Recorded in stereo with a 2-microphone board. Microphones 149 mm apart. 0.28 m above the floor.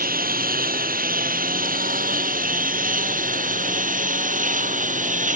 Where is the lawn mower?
75° right (ahead or behind); by 5.4 s 60° right (ahead or behind).